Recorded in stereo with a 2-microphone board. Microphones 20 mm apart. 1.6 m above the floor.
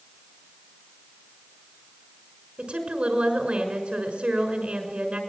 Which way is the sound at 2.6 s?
80° right.